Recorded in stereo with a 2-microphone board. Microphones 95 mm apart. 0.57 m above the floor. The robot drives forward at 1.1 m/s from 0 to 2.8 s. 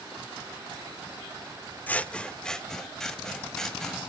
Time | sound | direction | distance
1.9 | scissors | 15° left (ahead or behind) | 0.5 m